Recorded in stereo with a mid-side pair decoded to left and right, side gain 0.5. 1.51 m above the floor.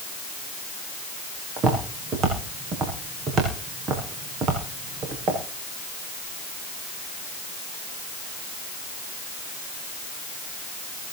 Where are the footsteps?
55° right, 6.5 m.